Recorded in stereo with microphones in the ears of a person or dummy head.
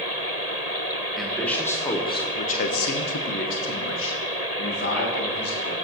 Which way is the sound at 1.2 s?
Centre (ahead or behind).